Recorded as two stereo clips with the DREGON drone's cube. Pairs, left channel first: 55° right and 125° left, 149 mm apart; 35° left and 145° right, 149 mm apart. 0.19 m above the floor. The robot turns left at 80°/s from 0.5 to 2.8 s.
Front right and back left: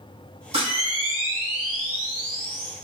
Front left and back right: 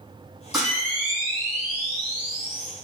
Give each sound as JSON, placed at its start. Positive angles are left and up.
{"t": 0.5, "sound": "a camera shutter", "azimuth_deg": 130, "distance_m": 1.4}